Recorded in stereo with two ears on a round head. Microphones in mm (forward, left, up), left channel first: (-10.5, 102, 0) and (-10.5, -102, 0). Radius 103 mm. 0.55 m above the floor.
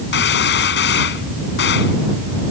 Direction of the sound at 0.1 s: 55° left (ahead or behind).